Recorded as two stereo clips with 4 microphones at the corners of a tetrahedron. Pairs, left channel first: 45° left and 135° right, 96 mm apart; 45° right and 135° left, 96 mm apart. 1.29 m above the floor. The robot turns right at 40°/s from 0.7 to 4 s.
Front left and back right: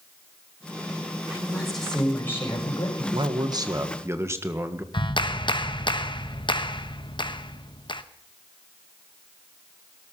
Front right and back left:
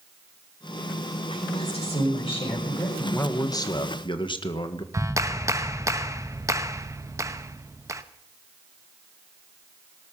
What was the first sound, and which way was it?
A woman speaking, 60° right.